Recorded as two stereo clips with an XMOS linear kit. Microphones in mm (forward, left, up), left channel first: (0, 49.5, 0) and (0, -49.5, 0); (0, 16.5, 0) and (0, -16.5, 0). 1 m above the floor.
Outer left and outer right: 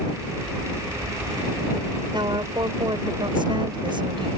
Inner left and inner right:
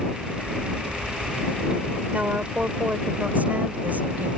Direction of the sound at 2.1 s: 50° right (ahead or behind).